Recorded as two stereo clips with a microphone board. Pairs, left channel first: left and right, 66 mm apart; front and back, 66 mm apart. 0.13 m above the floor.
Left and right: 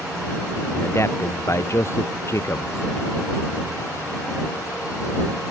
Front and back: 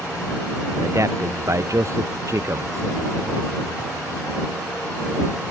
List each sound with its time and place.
0.8 s a man speaking: 135° left